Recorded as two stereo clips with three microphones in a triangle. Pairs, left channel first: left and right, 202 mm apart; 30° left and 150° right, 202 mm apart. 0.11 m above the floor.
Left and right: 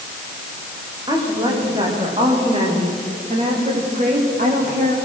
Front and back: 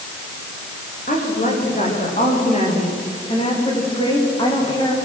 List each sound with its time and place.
1.1 s a woman speaking: 20° right, 9.5 m; by 5.0 s 40° right, 9.5 m